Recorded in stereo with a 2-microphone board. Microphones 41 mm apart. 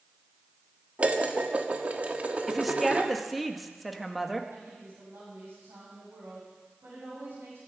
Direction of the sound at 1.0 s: 35° right (ahead or behind).